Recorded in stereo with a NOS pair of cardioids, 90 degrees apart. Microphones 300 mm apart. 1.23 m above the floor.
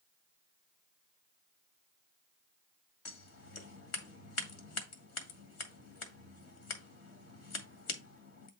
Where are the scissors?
60° left, 2 m.